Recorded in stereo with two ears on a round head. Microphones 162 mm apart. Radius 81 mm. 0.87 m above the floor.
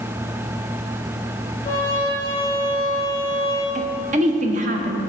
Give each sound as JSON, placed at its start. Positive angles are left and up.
{"t": 1.6, "sound": "a trumpet", "side_deg": 25, "distance_m": 2.5}
{"t": 3.8, "sound": "a woman speaking", "side_deg": -40, "distance_m": 0.7}